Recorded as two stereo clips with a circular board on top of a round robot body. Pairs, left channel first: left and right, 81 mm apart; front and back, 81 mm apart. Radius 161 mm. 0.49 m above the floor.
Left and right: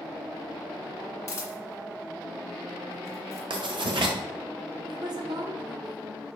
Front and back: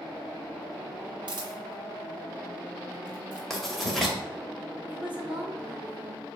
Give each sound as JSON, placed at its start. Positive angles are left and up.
{"t": 1.3, "sound": "a camera shutter", "azimuth_deg": 150, "distance_m": 1.9}
{"t": 3.5, "sound": "writing", "azimuth_deg": -90, "distance_m": 2.0}
{"t": 4.9, "sound": "a woman speaking", "azimuth_deg": -105, "distance_m": 2.5}